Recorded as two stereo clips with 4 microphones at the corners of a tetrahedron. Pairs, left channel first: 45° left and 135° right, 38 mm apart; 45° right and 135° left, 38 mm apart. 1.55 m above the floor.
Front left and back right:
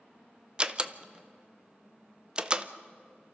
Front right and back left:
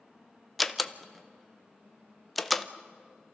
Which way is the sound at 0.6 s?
140° right.